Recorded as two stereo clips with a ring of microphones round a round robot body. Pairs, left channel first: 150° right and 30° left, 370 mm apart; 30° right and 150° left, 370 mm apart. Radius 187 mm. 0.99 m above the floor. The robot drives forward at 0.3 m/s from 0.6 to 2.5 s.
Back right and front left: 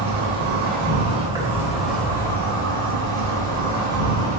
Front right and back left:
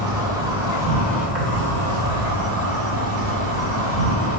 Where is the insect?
75° left, 0.8 m; by 4.4 s 135° left, 0.9 m.